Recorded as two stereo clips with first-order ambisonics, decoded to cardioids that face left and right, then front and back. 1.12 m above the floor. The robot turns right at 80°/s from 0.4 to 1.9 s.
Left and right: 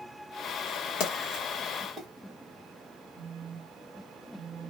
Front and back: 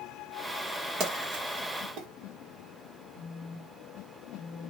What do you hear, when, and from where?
1.0 s a splash: 125° left, 1.4 m; by 2.1 s 160° right, 1.4 m
3.1 s a phone buzzing: 165° right, 1.3 m